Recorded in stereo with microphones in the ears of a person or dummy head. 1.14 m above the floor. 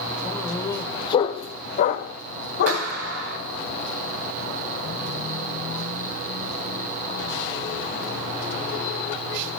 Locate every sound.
0.2 s a dog barking: 10° left (ahead or behind), 1.5 m; by 2.9 s 60° left (ahead or behind), 1.7 m
2.7 s a clap: 70° right (ahead or behind), 6.5 m